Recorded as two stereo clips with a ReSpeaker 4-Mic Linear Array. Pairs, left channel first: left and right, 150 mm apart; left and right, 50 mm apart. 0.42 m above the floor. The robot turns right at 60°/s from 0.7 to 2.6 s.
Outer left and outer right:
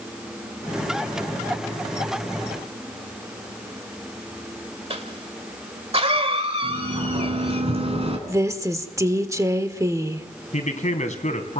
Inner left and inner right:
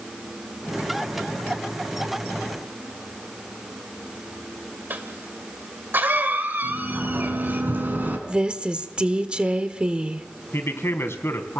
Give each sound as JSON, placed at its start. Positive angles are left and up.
{"t": 4.9, "sound": "a cough", "side_deg": -40, "distance_m": 1.8}
{"t": 6.6, "sound": "a sliding door", "side_deg": -40, "distance_m": 3.5}
{"t": 8.3, "sound": "a woman speaking", "side_deg": -20, "distance_m": 1.3}
{"t": 10.5, "sound": "a man speaking", "side_deg": 55, "distance_m": 3.0}